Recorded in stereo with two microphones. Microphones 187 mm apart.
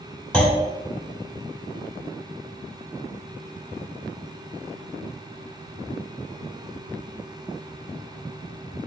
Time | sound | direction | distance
0.3 | a clunk | 5° left (ahead or behind) | 1.2 m